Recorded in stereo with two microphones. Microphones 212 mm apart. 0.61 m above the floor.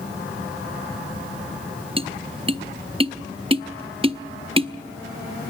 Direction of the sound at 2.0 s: 25° right (ahead or behind).